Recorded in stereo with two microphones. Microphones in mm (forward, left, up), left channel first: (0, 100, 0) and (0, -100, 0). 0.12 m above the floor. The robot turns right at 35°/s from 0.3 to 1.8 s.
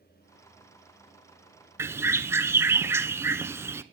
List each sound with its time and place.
1.8 s a bird: 15° right (ahead or behind), 0.6 m